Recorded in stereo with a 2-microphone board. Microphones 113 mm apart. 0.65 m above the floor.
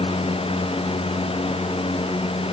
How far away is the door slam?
I don't hear a door slam.